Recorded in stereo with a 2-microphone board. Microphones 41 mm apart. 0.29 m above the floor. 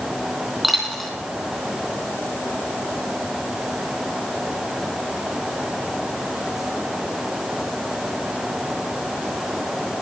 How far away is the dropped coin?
About 3.5 m.